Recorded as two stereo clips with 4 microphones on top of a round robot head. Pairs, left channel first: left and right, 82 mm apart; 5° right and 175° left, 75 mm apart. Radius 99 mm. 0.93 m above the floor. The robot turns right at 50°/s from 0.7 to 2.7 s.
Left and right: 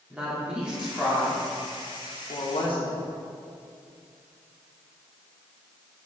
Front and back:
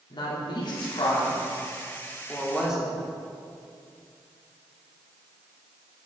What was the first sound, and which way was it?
A woman speaking, 10° right.